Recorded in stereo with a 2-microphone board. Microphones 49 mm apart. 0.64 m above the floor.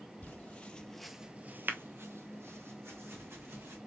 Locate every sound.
0.2 s footsteps: 35° left (ahead or behind), 1.2 m; by 3.8 s 55° right (ahead or behind), 3 m